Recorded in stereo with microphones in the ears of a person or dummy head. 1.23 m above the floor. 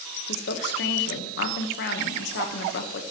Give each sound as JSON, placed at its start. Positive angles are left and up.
{"t": 0.3, "sound": "a woman speaking", "side_deg": 55, "distance_m": 1.3}